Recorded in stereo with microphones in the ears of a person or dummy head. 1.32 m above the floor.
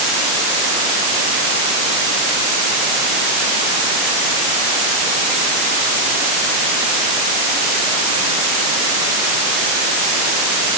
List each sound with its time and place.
Only background noise.